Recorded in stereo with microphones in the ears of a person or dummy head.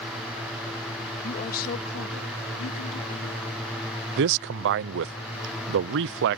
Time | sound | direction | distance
1.2 | a woman speaking | 45° left (ahead or behind) | ?
4.2 | a man speaking | 55° right (ahead or behind) | ?